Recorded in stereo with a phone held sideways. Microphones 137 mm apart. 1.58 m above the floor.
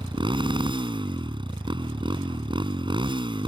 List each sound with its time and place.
0.0 s a motorcycle: 35° right (ahead or behind)